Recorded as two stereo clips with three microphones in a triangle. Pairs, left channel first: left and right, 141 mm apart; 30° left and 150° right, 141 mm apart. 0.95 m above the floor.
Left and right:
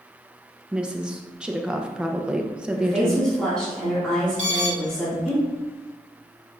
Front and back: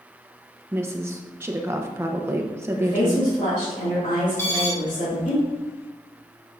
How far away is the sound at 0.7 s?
About 0.7 m.